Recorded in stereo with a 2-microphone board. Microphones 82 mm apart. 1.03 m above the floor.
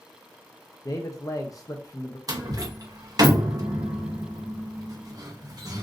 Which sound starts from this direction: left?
A man speaking, at 0.8 s.